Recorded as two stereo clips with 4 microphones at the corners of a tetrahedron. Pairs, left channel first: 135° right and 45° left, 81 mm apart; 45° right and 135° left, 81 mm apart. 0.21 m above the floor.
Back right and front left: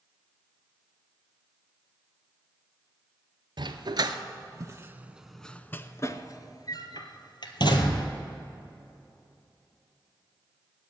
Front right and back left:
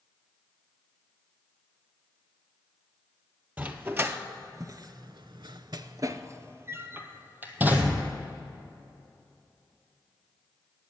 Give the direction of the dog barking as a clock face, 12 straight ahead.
10 o'clock.